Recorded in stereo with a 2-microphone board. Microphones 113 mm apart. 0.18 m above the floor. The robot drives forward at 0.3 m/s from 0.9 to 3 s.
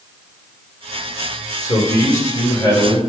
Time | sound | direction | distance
1.6 | a man speaking | 35° left (ahead or behind) | 3 m